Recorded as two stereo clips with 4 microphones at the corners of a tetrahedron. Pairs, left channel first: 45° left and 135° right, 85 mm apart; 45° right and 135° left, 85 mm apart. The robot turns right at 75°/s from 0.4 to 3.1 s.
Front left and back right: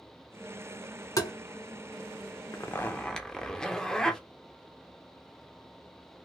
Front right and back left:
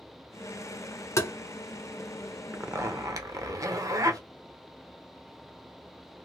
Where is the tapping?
Straight ahead, 0.7 m; by 1.3 s 15° left, 0.7 m.